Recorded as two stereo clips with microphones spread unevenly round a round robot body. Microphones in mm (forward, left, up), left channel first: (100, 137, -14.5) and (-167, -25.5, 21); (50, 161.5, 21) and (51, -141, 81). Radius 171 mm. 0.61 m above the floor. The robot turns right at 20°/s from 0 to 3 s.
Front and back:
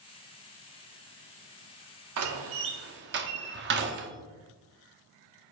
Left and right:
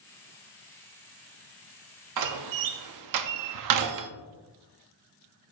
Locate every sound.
2.2 s a door slam: 110° right, 0.6 m; by 4.1 s 95° right, 0.6 m